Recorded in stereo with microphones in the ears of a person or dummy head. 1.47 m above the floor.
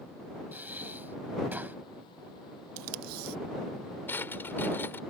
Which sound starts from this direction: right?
Tape being pulled, at 2.8 s.